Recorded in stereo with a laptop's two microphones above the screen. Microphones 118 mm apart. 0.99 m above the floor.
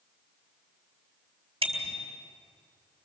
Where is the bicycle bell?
55° right (ahead or behind), 3 m.